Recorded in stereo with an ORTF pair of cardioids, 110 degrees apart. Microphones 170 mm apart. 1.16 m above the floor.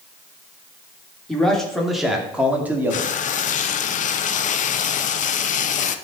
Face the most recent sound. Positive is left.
turn(degrees=50)